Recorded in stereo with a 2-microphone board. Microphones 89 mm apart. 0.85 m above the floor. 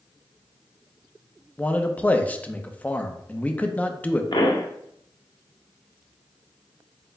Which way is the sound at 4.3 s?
55° left (ahead or behind).